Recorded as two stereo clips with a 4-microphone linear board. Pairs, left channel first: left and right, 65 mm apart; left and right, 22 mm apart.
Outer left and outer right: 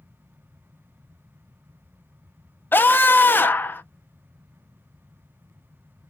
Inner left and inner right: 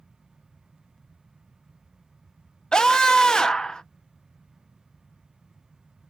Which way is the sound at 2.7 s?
30° left (ahead or behind).